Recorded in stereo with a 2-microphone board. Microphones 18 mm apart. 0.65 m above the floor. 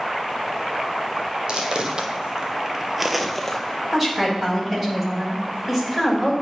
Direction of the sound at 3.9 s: 10° right (ahead or behind).